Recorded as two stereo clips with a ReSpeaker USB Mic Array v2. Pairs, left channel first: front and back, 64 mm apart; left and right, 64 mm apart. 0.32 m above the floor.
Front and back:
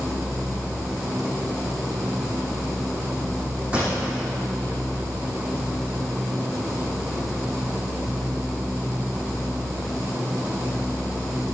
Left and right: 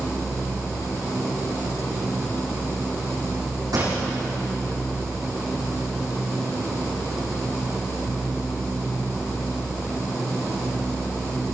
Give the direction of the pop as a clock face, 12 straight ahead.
4 o'clock.